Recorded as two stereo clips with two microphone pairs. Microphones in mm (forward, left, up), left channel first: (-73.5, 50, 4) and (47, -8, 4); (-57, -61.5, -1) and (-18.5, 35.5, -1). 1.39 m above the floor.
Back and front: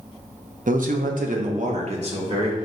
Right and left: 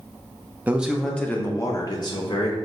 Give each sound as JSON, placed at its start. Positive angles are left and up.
{"t": 0.7, "sound": "a man speaking", "azimuth_deg": -5, "distance_m": 0.5}